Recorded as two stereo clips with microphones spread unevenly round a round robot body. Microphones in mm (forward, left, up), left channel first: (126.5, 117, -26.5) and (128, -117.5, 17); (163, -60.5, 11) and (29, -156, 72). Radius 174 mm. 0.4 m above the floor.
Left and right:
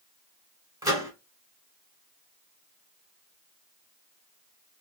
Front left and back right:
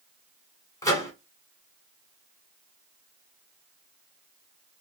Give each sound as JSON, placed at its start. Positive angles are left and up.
{"t": 0.8, "sound": "a microwave", "azimuth_deg": -5, "distance_m": 1.6}